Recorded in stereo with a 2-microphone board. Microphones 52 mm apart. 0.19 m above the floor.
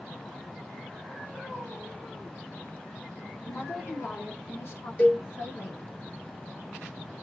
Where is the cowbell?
40° left (ahead or behind), 2.5 m.